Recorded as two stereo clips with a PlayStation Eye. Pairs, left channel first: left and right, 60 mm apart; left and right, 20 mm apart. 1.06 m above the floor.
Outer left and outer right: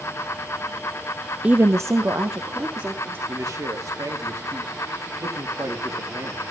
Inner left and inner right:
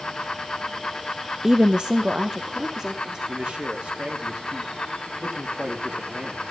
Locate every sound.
1.4 s a woman speaking: 20° right (ahead or behind), 0.5 m; by 3.2 s 45° right (ahead or behind), 2.5 m
3.3 s a man speaking: 65° right (ahead or behind), 2.5 m